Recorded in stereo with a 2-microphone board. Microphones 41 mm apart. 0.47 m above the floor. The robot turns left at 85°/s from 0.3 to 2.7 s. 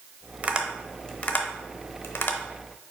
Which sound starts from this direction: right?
Tapping, at 0.4 s.